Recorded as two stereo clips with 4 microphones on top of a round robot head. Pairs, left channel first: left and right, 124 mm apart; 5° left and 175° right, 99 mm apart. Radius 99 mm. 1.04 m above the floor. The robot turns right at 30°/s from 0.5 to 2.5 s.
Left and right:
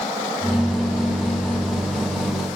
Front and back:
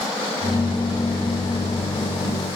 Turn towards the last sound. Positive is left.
No sound to turn to.